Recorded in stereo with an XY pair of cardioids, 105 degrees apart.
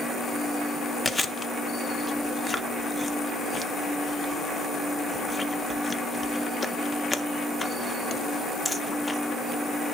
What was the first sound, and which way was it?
Chewing, 20° left.